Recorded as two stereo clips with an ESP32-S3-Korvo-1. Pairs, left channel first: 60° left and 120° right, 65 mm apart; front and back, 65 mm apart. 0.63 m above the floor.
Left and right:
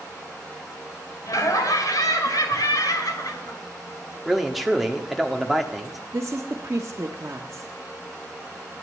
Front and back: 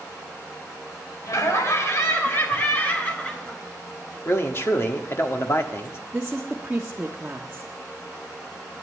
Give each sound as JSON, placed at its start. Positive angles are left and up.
{"t": 1.3, "sound": "laughter", "azimuth_deg": 35, "distance_m": 2.5}
{"t": 4.2, "sound": "a man speaking", "azimuth_deg": -35, "distance_m": 1.4}
{"t": 6.1, "sound": "a woman speaking", "azimuth_deg": -120, "distance_m": 1.2}